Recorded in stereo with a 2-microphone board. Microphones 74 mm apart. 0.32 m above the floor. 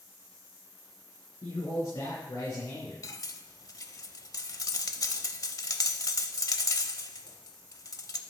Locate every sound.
1.4 s a man speaking: 75° left (ahead or behind), 4.5 m; by 2.9 s 60° left (ahead or behind), 4 m
3.0 s cutlery clinking: 50° left (ahead or behind), 0.6 m